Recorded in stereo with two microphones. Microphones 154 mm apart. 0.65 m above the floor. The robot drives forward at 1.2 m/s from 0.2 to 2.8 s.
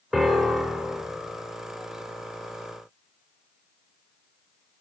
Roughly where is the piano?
Centre.